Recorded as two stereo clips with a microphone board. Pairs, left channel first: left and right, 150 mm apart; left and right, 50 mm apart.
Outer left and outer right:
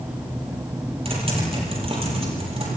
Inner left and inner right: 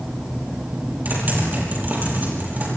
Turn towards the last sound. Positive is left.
turn(degrees=-40)  # may be behind; listen again after turning